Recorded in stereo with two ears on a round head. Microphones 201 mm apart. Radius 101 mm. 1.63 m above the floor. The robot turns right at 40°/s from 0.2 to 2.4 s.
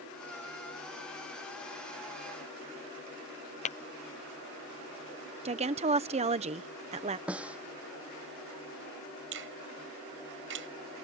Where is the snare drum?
5° right (ahead or behind).